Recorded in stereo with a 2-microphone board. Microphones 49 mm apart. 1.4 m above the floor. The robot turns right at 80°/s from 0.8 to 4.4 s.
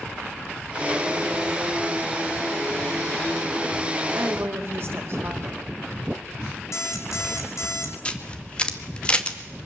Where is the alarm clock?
75° left (ahead or behind), 3.5 m.